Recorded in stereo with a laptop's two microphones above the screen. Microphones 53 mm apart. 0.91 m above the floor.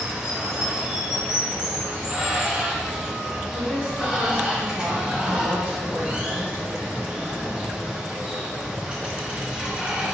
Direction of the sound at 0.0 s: 20° right (ahead or behind).